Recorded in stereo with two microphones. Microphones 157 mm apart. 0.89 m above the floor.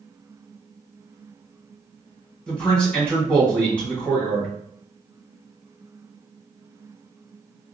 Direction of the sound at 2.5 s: 5° left (ahead or behind).